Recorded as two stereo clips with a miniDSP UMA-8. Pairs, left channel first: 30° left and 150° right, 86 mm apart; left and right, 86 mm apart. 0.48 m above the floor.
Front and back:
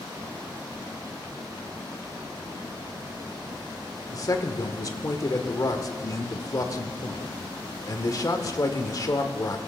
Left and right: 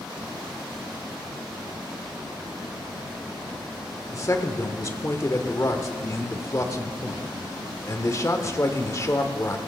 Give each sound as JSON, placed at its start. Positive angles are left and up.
{"t": 4.1, "sound": "a man speaking", "azimuth_deg": 55, "distance_m": 1.1}